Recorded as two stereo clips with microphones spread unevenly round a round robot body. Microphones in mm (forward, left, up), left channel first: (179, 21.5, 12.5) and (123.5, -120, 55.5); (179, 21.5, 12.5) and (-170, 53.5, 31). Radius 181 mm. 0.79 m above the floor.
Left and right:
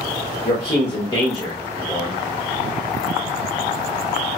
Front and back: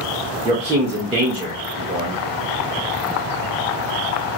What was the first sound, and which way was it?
A man speaking, 100° left.